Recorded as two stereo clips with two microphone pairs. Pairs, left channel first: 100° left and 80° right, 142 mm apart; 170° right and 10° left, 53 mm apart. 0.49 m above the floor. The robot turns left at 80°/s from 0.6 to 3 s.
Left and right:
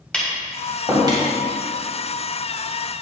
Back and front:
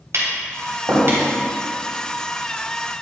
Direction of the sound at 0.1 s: 20° left.